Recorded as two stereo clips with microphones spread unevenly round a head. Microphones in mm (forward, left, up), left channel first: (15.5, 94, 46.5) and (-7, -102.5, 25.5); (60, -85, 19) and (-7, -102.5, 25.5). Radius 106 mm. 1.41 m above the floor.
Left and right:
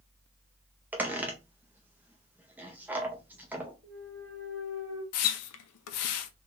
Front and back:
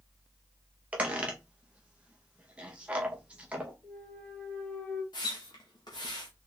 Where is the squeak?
Straight behind, 0.6 m.